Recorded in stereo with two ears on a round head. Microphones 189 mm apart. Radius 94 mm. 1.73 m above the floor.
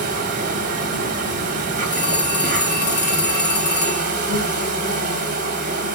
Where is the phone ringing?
20° left (ahead or behind), 2.0 m.